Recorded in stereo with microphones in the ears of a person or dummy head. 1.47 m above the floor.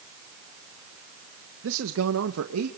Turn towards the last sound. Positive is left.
turn(degrees=-85)